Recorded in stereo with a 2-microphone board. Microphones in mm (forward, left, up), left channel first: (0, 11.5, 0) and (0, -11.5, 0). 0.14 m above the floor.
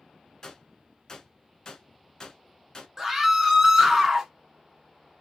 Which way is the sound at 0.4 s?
30° left (ahead or behind).